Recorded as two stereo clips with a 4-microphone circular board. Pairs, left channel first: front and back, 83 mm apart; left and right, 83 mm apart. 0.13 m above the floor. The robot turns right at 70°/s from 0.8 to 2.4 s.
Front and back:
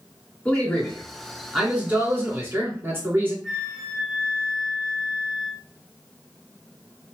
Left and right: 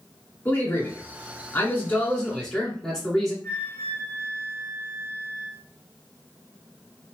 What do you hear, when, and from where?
0.5 s a man speaking: 55° left, 1.8 m; by 3.3 s 170° left, 1.8 m
3.4 s a flute: 90° left, 1.0 m